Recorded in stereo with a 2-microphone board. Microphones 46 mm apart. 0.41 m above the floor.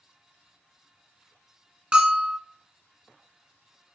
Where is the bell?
15° right (ahead or behind), 1.5 m.